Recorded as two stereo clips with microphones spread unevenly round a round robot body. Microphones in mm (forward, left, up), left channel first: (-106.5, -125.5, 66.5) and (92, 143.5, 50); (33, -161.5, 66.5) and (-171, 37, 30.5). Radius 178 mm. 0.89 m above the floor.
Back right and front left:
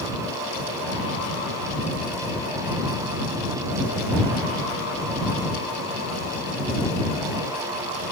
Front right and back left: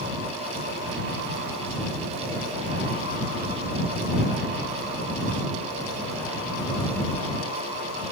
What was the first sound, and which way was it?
Only background noise.